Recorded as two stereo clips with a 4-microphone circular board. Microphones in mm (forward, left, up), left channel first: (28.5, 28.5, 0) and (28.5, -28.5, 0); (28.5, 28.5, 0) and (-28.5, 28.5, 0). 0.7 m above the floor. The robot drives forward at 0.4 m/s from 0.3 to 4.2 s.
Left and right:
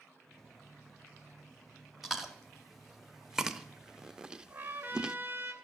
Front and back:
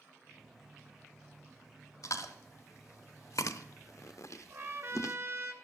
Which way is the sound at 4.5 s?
140° right.